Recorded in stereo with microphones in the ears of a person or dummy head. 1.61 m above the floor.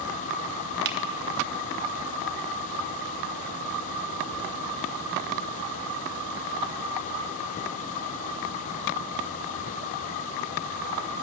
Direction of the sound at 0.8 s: 60° right (ahead or behind).